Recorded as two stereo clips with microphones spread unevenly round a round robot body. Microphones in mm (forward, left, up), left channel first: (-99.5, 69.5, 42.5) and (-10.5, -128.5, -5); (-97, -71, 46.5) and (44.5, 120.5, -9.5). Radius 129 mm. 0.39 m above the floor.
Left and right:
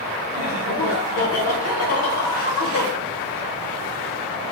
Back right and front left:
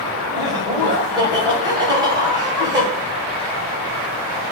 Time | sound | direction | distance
0.3 | laughter | 115° left | 2.5 m